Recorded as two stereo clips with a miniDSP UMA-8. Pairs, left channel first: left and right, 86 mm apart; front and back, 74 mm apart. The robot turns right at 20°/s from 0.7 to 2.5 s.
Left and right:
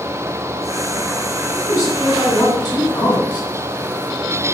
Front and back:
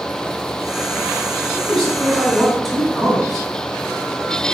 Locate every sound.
1.5 s a man speaking: 80° left, 1.5 m; by 3.5 s 100° left, 1.5 m